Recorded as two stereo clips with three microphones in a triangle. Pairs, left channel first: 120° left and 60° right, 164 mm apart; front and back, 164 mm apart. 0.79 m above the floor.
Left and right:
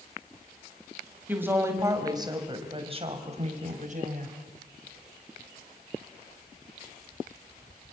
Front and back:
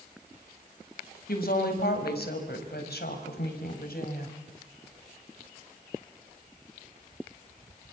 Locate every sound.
1.3 s a woman speaking: 20° left, 4.5 m; by 4.4 s 25° right, 4.5 m